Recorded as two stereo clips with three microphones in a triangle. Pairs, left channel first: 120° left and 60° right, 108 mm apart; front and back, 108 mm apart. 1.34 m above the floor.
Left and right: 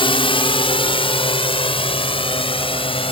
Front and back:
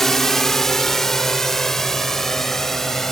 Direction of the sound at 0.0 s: 85° left.